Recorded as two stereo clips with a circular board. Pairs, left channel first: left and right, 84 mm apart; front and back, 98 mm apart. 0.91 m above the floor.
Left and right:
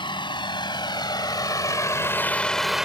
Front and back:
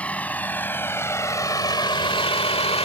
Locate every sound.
0.0 s a vehicle: 75° left; by 2.9 s 5° right